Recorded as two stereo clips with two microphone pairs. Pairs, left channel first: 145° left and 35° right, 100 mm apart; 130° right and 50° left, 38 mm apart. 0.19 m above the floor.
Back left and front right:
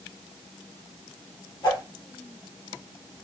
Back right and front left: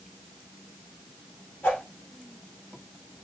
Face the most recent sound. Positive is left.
turn(degrees=-170)